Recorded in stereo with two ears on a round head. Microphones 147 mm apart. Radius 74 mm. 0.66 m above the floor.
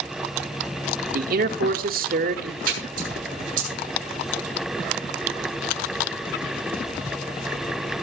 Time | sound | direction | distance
1.1 | a man speaking | 60° right (ahead or behind) | 1.7 m
2.6 | a splash | 60° right (ahead or behind) | 7.5 m